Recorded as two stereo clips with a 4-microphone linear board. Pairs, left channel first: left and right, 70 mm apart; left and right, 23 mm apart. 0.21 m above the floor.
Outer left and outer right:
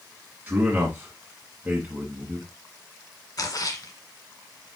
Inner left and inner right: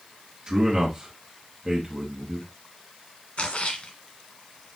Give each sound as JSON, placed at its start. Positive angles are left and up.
{"t": 0.5, "sound": "a man speaking", "side_deg": -20, "distance_m": 1.9}
{"t": 3.4, "sound": "a splash", "side_deg": 55, "distance_m": 1.8}